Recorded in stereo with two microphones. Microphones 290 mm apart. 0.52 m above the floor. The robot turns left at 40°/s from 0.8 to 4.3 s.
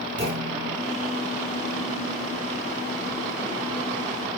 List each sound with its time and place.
0.2 s a clunk: 40° right (ahead or behind), 6 m